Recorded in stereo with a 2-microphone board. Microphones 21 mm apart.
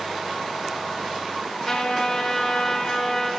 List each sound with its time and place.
1.6 s a trumpet: 35° left (ahead or behind), 2 m